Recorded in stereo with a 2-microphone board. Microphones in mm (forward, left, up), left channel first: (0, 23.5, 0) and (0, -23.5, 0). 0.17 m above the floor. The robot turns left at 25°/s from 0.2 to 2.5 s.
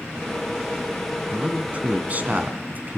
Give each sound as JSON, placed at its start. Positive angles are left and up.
{"t": 1.3, "sound": "a man speaking", "side_deg": -25, "distance_m": 2.0}